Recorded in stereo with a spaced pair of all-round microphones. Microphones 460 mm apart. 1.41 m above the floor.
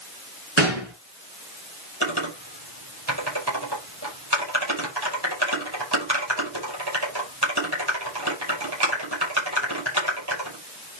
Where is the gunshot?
75° right (ahead or behind), 4 m.